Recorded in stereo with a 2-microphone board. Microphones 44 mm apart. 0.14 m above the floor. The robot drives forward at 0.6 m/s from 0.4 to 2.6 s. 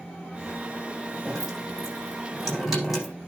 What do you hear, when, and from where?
1.2 s dripping: 10° right (ahead or behind), 8 m